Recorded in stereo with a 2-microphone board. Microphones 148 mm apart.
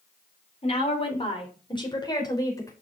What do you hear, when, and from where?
0.6 s a woman speaking: 45° left (ahead or behind), 3 m; by 2.7 s 20° left (ahead or behind), 3.5 m